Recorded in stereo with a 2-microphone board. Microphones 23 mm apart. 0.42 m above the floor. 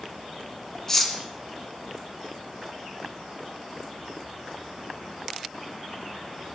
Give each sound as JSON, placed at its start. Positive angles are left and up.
{"t": 0.9, "sound": "cutlery clinking", "side_deg": 15, "distance_m": 2.5}